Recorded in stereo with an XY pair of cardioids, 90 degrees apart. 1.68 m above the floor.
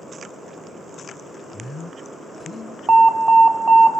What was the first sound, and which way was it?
A man speaking, 30° left.